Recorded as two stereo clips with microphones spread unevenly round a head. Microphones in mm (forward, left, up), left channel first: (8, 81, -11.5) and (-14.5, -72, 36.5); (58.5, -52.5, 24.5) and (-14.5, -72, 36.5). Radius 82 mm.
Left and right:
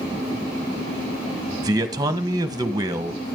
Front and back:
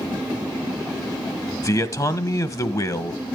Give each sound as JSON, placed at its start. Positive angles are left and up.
{"t": 1.6, "sound": "a man speaking", "azimuth_deg": -30, "distance_m": 1.6}